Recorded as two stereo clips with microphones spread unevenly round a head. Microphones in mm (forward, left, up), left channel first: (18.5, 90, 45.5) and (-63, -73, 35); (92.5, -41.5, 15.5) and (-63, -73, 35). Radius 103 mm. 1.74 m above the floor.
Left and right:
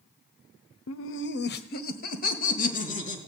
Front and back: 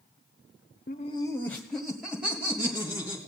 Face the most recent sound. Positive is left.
turn(degrees=110)